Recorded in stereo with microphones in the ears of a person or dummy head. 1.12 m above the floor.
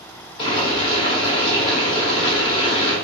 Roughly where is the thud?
No thud in this recording.